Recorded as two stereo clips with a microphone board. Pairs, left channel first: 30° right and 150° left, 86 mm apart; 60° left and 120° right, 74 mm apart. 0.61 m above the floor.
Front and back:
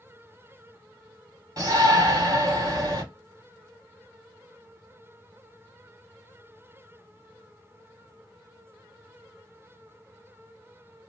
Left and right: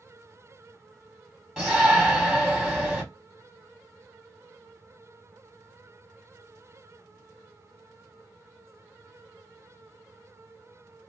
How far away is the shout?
About 1.6 m.